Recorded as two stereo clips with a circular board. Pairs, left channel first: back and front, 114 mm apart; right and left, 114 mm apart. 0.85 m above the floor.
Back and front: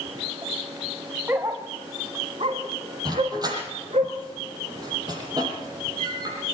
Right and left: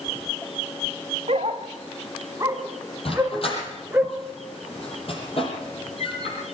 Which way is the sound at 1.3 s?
70° left.